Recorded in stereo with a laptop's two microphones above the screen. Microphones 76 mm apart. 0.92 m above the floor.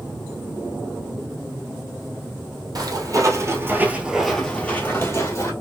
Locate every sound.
2.8 s footsteps: 55° right (ahead or behind), 1.5 m; by 5.5 s 40° left (ahead or behind), 1.6 m